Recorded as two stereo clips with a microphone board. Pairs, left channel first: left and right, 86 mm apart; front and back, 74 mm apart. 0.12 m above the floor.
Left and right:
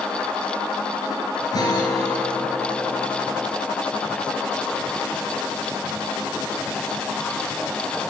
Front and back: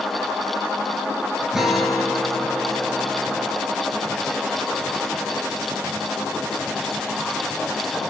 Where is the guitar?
95° left, 1.5 m.